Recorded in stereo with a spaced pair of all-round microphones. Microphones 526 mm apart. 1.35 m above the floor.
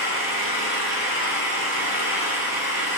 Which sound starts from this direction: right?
An engine running, at 0.0 s.